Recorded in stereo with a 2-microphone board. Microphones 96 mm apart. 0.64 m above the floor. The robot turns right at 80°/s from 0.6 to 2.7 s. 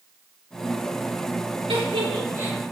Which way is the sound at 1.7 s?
80° right.